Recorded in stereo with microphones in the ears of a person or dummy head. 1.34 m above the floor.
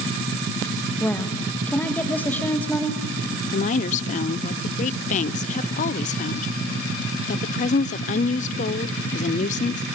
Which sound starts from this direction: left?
A woman speaking, at 3.5 s.